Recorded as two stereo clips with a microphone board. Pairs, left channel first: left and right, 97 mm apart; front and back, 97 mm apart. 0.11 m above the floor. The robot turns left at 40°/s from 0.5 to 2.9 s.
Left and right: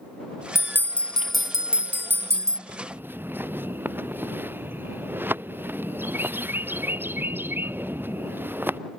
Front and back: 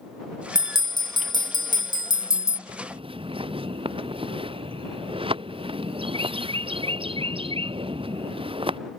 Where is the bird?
150° right; by 8.8 s 160° right.